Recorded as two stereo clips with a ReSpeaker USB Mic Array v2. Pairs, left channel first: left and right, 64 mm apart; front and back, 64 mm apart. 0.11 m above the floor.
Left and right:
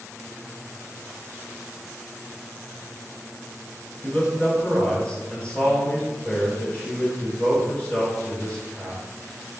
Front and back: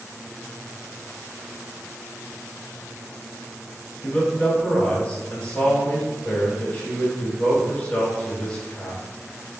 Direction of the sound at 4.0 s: 45° left.